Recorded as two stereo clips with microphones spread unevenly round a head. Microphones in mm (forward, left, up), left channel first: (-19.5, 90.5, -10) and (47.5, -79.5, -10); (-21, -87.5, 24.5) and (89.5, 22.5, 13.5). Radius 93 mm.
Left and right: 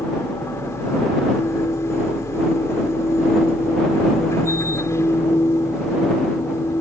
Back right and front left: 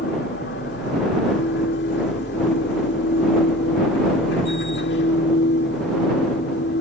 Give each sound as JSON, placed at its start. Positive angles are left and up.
{"t": 0.0, "sound": "a machine running", "azimuth_deg": -170}